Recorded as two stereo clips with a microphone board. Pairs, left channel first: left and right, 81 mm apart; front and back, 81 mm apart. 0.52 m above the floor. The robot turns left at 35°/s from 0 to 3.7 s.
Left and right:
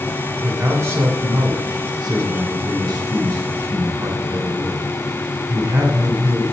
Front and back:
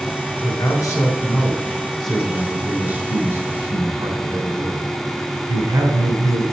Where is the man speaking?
25° right, 1.6 m; by 6.4 s 140° right, 1.6 m.